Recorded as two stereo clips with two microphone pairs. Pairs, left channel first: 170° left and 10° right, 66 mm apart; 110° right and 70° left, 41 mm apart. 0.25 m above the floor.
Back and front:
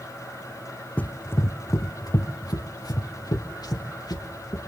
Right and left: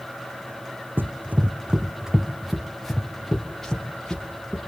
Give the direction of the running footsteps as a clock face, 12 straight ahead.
9 o'clock.